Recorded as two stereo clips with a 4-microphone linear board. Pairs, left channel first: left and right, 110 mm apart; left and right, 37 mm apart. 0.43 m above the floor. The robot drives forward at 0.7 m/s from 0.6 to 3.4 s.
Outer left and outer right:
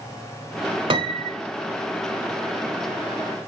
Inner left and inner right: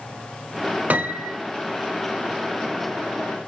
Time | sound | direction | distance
0.9 | a piano | 55° right (ahead or behind) | 0.8 m